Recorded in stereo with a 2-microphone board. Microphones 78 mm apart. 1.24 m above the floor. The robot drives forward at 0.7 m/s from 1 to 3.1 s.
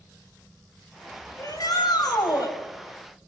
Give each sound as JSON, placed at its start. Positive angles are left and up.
{"t": 1.4, "sound": "a shout", "side_deg": 55, "distance_m": 6.5}